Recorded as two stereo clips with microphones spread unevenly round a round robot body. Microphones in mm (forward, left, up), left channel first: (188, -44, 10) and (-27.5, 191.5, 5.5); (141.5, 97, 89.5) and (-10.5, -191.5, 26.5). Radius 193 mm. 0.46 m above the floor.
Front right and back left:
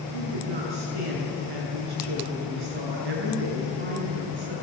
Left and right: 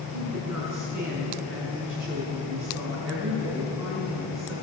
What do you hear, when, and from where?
0.1 s a woman speaking: 155° left, 7.5 m